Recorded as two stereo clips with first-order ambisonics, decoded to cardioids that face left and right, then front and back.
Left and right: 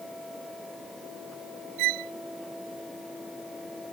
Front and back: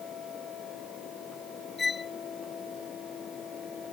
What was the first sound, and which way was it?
A violin, 75° right.